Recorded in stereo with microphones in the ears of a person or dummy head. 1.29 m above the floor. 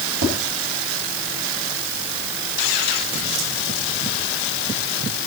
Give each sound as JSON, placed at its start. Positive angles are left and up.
{"t": 0.2, "sound": "tapping", "side_deg": -85, "distance_m": 6.5}